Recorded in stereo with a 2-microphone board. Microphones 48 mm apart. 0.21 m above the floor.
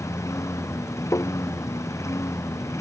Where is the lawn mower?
85° left.